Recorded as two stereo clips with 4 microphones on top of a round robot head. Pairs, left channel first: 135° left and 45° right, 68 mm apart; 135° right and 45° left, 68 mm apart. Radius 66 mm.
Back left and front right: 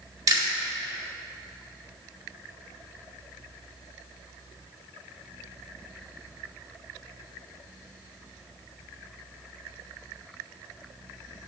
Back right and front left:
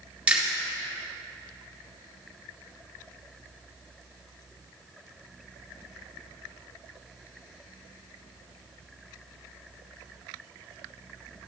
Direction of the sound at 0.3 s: 30° right.